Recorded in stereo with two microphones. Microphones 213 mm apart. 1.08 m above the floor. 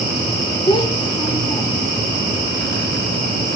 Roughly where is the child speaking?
Left.